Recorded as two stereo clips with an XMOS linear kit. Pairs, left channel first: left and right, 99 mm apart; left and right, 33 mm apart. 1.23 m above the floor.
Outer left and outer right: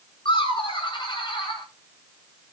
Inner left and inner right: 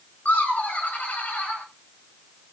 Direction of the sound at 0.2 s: 55° left (ahead or behind).